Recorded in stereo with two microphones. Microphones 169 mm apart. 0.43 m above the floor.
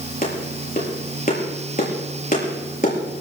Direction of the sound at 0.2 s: 50° left (ahead or behind).